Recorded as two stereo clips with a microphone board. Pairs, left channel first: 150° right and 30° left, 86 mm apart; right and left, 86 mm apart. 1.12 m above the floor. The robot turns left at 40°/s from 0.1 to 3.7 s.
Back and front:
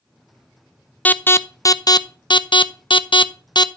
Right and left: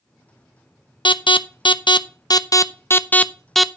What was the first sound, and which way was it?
An alarm, 75° right.